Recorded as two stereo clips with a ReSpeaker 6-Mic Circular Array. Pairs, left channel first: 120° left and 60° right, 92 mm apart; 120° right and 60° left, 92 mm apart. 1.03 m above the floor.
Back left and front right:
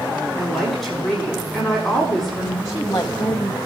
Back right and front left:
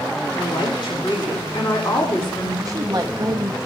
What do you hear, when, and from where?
0.3 s a woman speaking: 150° right, 5.5 m
2.6 s a woman speaking: 85° left, 0.8 m